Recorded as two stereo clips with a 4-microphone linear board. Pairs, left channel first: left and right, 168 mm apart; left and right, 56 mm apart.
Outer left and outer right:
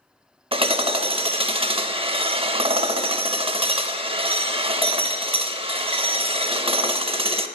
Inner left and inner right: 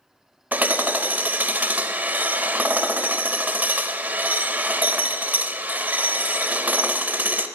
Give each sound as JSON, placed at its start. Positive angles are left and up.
{"t": 0.5, "sound": "hammering", "side_deg": -30, "distance_m": 0.6}